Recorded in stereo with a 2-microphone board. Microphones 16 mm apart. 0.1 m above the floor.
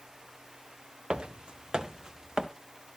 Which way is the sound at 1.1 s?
85° right.